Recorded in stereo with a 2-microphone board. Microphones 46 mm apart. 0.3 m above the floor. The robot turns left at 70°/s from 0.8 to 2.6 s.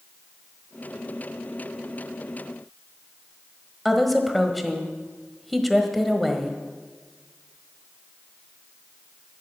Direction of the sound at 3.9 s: Centre (ahead or behind).